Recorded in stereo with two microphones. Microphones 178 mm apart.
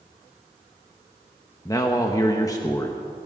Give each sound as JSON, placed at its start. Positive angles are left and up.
{"t": 1.6, "sound": "a man speaking", "side_deg": 20, "distance_m": 0.9}